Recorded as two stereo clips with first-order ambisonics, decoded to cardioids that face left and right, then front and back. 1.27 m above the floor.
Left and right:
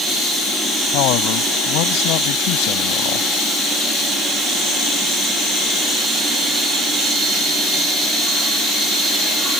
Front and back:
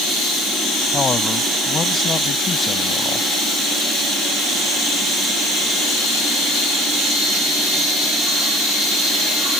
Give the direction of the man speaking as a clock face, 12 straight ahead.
10 o'clock.